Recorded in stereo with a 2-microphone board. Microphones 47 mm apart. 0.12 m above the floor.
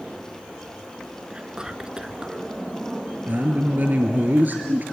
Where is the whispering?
15° right (ahead or behind), 1.1 m.